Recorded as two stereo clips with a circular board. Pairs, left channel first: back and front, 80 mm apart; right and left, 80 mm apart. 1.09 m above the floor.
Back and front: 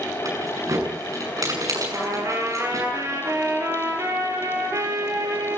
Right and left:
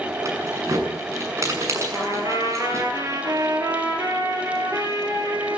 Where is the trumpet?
50° left, 4.5 m.